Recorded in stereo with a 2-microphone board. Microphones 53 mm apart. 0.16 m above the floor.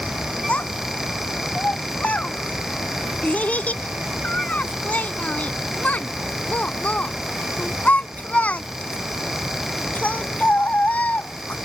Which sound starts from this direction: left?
A child speaking, at 0.5 s.